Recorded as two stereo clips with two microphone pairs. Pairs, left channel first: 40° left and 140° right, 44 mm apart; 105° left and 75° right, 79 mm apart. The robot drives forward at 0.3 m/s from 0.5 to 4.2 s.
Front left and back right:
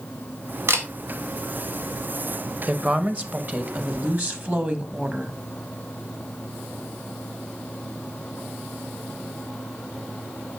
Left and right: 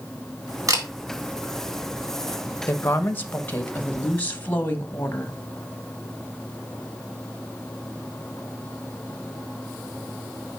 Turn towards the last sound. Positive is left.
turn(degrees=170)